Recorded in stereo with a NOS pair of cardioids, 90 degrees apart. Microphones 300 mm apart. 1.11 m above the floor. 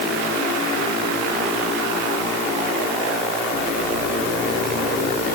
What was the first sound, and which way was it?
Only background noise.